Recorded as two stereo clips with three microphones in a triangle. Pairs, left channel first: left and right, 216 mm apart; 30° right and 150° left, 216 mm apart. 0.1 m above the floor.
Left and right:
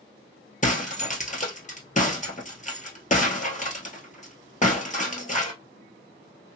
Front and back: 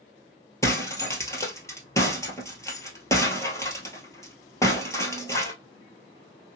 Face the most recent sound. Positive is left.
turn(degrees=45)